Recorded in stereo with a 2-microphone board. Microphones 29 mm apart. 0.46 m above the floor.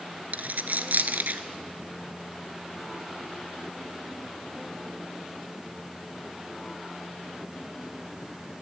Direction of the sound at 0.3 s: 75° right (ahead or behind).